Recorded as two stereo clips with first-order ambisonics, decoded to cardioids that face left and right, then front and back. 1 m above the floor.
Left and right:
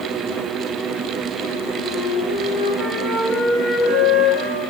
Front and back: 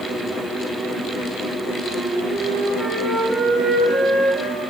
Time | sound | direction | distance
1.8 | a flute | 95° right | 6.5 m